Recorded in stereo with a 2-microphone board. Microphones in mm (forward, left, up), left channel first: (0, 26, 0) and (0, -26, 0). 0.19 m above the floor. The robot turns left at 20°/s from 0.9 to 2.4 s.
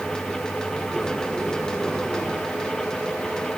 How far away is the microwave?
No microwave in this recording.